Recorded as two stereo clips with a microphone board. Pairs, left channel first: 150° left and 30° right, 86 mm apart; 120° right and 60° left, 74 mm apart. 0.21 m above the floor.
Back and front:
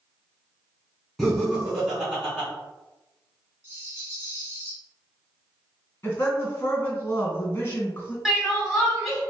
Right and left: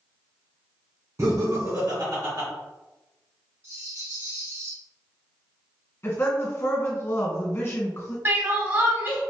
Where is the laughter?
60° left, 1.9 m; by 2.5 s 45° left, 2.5 m.